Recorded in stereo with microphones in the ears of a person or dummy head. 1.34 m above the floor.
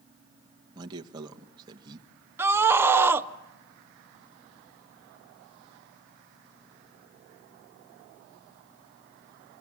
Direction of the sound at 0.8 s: 30° right (ahead or behind).